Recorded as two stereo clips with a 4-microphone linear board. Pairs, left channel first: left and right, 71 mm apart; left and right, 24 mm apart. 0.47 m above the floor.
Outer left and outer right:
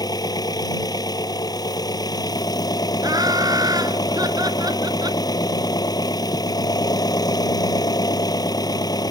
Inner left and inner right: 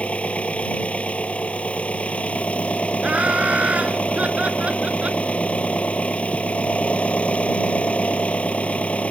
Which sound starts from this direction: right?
Laughter, at 3.0 s.